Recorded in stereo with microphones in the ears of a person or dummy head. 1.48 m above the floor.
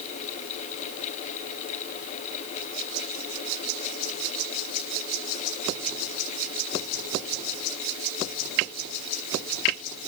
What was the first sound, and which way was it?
Only background noise.